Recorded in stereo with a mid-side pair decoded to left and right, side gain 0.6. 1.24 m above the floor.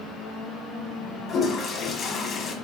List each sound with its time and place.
1.3 s a toilet flushing: 40° left, 0.9 m